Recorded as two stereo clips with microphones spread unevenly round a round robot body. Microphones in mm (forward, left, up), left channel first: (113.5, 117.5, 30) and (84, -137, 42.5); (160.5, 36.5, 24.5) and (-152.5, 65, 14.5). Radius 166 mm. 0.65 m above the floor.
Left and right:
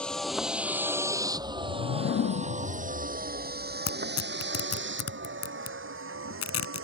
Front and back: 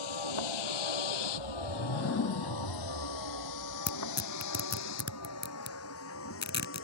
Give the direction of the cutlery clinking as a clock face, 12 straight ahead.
I don't hear cutlery clinking.